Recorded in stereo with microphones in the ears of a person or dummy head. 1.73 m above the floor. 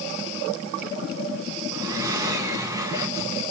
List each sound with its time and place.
1.7 s breathing: 20° right (ahead or behind), 1.2 m